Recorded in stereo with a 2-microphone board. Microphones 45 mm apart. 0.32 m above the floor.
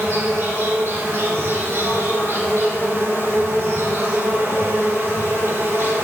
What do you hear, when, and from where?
0.0 s an insect: 80° right, 3 m